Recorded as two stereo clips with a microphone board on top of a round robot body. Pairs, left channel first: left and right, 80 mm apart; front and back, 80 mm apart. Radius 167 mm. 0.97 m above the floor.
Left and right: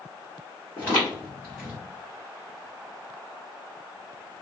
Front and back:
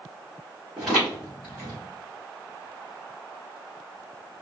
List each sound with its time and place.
0.8 s footsteps: 105° right, 1.1 m; by 1.8 s straight ahead, 1.3 m